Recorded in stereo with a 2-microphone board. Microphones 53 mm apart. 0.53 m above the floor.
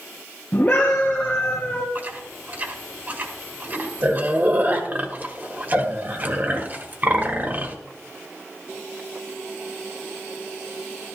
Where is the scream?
30° left (ahead or behind), 3 m.